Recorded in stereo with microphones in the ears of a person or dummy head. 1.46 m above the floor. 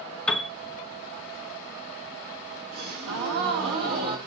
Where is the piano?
5° left (ahead or behind), 0.6 m.